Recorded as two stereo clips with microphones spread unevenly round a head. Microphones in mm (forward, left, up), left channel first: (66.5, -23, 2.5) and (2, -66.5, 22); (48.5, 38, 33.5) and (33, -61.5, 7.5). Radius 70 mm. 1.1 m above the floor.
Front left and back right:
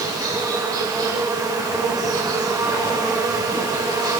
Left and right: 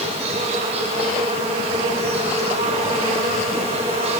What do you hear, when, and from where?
0.0 s an insect: 105° right, 8.5 m